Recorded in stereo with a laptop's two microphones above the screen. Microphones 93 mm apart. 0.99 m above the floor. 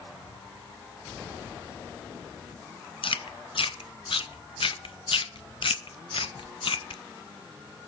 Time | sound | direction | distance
3.0 | chewing | 75° left (ahead or behind) | 0.6 m